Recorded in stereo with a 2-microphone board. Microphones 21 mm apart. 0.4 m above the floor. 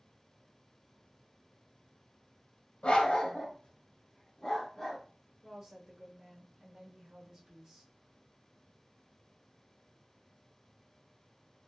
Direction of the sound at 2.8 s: 65° left (ahead or behind).